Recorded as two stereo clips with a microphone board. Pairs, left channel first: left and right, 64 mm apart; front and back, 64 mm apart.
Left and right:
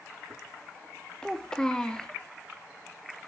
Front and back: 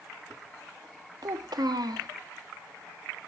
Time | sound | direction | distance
1.2 | a child speaking | 170° left | 0.9 m